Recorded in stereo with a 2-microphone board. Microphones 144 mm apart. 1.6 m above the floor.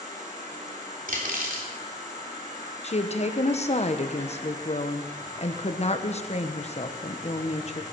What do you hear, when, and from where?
0.0 s an insect: 55° right (ahead or behind), 5.5 m
1.1 s cutlery clinking: 75° right (ahead or behind), 3 m
2.8 s a woman speaking: 50° left (ahead or behind), 1.2 m